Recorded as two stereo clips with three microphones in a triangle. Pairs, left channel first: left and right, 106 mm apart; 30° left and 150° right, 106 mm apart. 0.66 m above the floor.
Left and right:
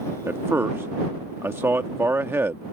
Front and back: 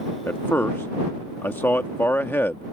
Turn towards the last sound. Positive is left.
turn(degrees=-30)